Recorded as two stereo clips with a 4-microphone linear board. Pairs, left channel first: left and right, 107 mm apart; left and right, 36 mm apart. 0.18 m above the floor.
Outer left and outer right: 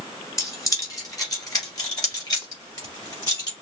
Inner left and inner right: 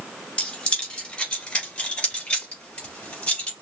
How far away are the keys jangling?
About 2.0 m.